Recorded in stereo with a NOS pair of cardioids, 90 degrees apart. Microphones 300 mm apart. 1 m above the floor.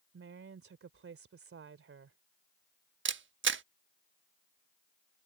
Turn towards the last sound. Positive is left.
turn(degrees=-40)